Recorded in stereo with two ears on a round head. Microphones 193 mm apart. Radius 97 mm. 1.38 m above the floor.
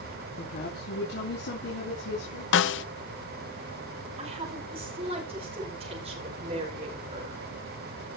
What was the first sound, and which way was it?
A woman speaking, 50° left (ahead or behind).